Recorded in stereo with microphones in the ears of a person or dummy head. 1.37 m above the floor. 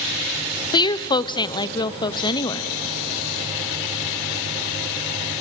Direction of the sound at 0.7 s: 25° left (ahead or behind).